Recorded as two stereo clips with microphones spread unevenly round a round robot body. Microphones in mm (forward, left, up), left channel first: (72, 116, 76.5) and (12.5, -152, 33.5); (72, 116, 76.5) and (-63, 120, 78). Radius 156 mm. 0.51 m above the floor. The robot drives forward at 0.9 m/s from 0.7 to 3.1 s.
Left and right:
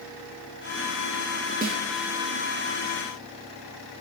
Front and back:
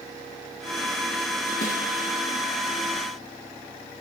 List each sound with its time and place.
1.6 s a snare drum: 45° right, 7 m